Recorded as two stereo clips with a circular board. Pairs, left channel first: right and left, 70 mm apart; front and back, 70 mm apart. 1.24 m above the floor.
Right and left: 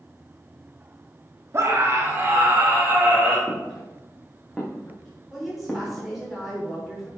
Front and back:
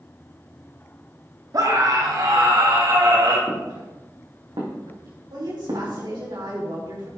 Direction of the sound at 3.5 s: 175° left.